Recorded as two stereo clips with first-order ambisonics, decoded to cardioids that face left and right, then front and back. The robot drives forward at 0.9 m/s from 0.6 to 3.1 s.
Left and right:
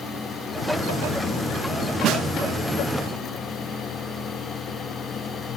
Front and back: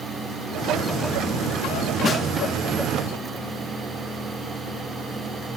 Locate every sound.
2.0 s a snare drum: 60° right, 1.4 m; by 2.3 s 70° right, 1.3 m